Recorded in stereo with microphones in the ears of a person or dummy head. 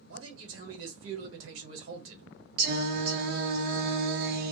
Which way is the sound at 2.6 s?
55° right (ahead or behind).